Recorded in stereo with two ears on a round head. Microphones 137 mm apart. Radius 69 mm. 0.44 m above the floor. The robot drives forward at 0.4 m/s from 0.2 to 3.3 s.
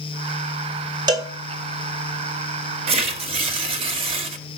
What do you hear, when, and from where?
1.1 s a cowbell: 25° right (ahead or behind), 1.4 m
2.9 s tearing paper: 40° right (ahead or behind), 1.6 m